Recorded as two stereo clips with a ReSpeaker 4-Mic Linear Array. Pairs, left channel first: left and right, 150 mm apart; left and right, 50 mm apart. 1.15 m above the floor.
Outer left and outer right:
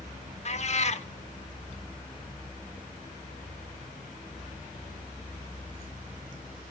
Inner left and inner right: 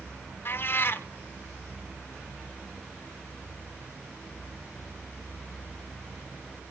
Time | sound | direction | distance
0.5 | a cat meowing | 50° left (ahead or behind) | 1.0 m